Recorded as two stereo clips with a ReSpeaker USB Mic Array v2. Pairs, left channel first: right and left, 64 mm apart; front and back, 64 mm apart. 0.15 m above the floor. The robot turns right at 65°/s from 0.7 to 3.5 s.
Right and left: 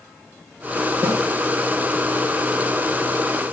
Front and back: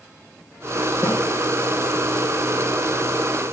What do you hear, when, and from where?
1.0 s a snare drum: 55° left, 3 m; by 1.2 s 65° left, 3 m